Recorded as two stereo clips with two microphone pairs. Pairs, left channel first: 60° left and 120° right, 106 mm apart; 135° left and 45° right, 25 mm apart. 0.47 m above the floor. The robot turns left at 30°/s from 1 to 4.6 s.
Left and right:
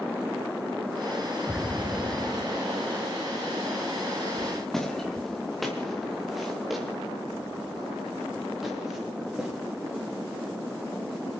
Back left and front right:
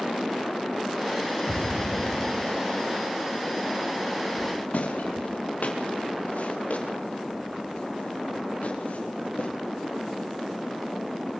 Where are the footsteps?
150° left, 4 m; by 9.5 s 155° left, 7.5 m.